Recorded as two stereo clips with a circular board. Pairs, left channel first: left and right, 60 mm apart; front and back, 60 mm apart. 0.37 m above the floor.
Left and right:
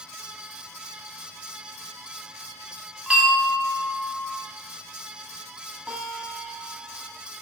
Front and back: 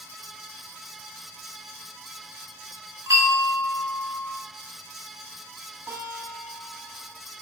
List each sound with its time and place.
3.1 s a bell: 160° right, 1.9 m
5.9 s a guitar: 160° right, 2.5 m